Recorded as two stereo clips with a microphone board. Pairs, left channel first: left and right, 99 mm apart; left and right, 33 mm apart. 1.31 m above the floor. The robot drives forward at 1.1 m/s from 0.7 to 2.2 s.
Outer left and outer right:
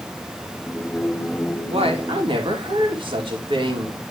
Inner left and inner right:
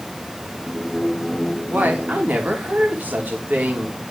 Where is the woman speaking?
75° right (ahead or behind), 1.6 m; by 4.0 s 55° right (ahead or behind), 1.9 m.